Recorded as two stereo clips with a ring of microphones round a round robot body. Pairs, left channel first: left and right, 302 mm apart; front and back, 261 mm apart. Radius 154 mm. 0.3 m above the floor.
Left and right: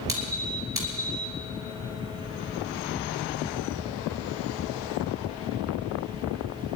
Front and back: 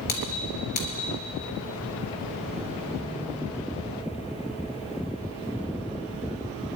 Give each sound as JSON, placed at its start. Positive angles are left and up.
{"t": 0.1, "sound": "a squeak", "azimuth_deg": -10, "distance_m": 3.5}